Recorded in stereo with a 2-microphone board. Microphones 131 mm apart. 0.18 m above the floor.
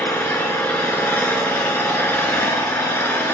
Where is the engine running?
15° left (ahead or behind), 0.7 m.